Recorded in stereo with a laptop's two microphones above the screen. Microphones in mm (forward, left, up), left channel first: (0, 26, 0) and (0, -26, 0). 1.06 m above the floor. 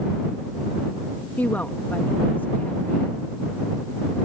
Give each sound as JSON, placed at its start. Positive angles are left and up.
{"t": 1.4, "sound": "a woman speaking", "side_deg": 35}